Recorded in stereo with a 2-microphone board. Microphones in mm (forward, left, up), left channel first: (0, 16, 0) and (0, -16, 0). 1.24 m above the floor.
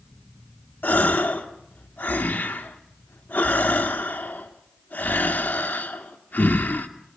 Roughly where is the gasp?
Left.